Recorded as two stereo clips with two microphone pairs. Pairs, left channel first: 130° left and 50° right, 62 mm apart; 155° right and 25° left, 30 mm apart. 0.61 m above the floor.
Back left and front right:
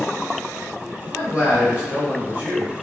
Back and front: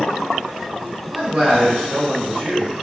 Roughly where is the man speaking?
Ahead.